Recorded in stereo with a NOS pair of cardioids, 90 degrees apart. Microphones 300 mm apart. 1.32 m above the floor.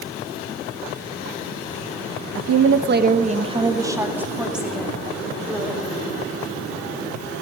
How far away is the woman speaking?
About 1.0 m.